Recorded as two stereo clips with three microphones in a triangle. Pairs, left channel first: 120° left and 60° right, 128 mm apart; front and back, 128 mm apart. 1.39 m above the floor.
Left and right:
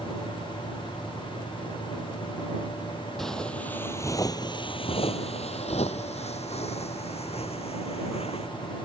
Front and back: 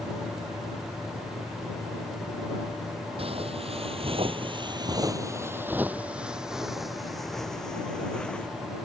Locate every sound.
3.2 s footsteps: 150° right; by 8.5 s 80° left